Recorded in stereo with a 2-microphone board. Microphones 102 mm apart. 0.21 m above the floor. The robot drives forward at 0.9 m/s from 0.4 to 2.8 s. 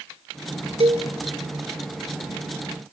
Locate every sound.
0.8 s a cowbell: 70° right (ahead or behind), 3 m